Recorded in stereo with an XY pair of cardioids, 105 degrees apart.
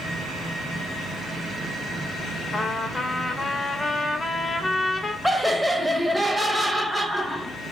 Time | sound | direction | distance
2.5 | a trumpet | 25° left | 0.5 m
5.2 | laughter | 5° left | 0.5 m